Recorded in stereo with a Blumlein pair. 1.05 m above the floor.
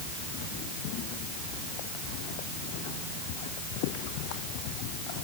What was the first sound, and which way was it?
Only background noise.